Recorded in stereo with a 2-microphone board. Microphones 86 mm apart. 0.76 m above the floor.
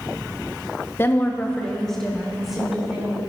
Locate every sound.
1.0 s a woman speaking: 30° left (ahead or behind), 0.9 m; by 3.2 s 5° right (ahead or behind), 2.5 m